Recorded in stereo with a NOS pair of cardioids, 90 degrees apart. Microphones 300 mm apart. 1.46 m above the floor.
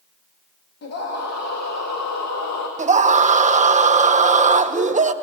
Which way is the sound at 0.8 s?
55° left.